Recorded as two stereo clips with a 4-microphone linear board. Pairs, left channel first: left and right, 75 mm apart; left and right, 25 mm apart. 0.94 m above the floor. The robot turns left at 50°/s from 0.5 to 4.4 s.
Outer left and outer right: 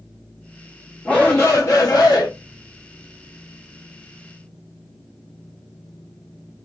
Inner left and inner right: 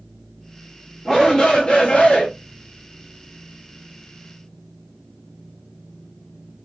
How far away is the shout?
About 0.6 m.